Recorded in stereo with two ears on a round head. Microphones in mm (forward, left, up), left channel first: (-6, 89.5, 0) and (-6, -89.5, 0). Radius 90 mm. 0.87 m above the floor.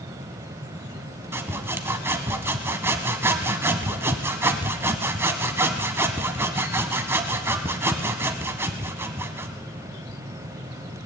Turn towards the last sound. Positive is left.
turn(degrees=-10)  # may be behind; listen again after turning